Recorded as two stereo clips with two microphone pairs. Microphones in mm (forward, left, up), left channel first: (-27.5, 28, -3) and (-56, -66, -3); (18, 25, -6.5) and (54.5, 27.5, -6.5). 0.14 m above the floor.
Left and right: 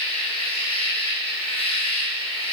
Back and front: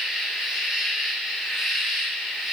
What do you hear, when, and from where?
0.0 s an insect: 75° left, 3 m